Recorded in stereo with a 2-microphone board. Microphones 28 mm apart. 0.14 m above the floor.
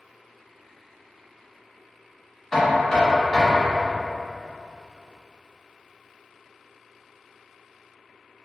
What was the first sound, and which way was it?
Knocking, 20° left (ahead or behind).